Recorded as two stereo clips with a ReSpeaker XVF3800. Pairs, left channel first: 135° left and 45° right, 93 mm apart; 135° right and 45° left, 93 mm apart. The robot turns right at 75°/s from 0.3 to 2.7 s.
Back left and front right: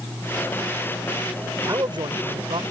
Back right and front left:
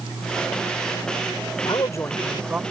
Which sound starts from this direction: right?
A man speaking, at 1.6 s.